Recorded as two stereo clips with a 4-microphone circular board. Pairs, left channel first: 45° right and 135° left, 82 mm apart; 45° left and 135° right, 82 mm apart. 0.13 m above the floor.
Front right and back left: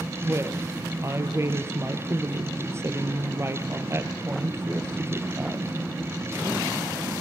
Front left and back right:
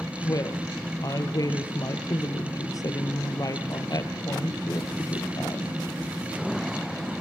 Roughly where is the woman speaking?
Left.